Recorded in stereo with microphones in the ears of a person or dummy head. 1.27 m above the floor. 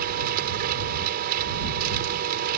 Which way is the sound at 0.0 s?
50° right (ahead or behind).